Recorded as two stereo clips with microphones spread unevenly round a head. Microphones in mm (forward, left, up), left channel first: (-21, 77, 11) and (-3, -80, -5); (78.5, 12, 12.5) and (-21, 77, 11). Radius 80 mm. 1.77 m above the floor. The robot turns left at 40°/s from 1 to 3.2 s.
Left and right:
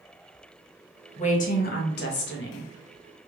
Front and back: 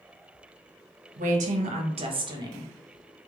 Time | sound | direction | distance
1.2 | a woman speaking | 140° left | 0.8 m